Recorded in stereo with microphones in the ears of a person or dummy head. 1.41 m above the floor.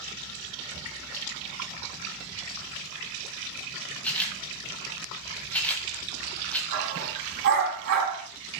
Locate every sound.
4.0 s a camera shutter: 10° left (ahead or behind), 2 m
6.7 s a dog barking: 60° right (ahead or behind), 4.5 m